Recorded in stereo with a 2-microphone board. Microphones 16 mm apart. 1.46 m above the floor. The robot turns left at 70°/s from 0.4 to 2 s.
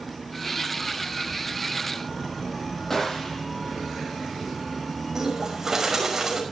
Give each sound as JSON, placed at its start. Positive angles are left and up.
{"t": 2.9, "sound": "a gunshot", "side_deg": 25, "distance_m": 8.0}
{"t": 5.2, "sound": "a bird", "side_deg": -25, "distance_m": 6.0}